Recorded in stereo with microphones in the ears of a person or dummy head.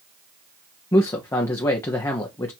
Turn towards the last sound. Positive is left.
turn(degrees=20)  # may be behind; listen again after turning